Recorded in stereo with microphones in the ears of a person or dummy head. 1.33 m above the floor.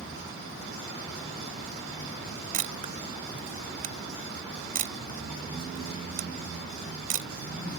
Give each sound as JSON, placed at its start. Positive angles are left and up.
{"t": 2.5, "sound": "a camera shutter", "side_deg": -35}